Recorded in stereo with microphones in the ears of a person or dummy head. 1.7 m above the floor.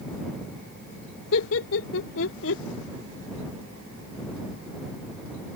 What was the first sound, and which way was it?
Laughter, 85° left.